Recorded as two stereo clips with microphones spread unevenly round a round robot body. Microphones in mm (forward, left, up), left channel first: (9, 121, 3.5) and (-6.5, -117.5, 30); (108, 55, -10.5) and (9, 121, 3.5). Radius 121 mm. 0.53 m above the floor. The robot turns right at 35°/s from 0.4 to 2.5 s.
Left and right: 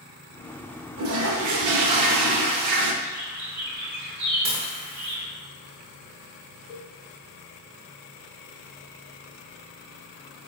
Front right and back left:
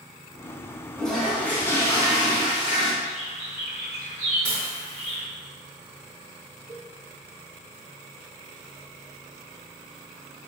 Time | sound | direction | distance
1.0 | a toilet flushing | 135° right | 0.6 m
3.0 | a bird | 95° right | 1.4 m
4.5 | dishes clattering | 165° right | 0.8 m
6.7 | a cowbell | 60° left | 0.8 m